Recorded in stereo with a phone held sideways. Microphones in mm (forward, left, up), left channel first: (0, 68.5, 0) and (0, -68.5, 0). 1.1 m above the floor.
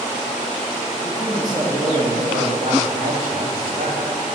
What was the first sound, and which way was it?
A man speaking, 15° right (ahead or behind).